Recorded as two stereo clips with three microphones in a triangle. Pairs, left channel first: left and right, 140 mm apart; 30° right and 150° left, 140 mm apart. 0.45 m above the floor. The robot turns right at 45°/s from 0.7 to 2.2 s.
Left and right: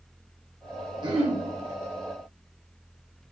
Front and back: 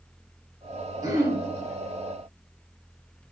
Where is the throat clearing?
145° right, 0.5 m; by 1.4 s 125° right, 0.5 m.